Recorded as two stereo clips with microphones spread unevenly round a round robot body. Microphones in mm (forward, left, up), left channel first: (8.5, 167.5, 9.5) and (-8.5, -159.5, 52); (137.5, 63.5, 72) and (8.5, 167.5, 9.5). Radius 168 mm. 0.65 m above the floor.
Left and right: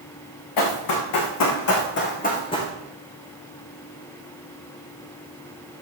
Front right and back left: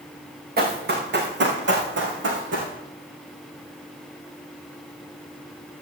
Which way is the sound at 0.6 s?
115° left.